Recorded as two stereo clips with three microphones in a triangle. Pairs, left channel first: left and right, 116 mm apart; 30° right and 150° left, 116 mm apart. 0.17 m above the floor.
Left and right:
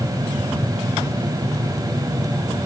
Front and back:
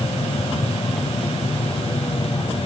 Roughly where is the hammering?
No hammering in this recording.